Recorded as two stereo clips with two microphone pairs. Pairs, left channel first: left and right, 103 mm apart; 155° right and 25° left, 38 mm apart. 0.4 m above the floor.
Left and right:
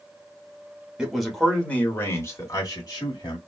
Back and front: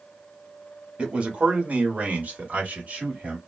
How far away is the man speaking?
About 1.0 m.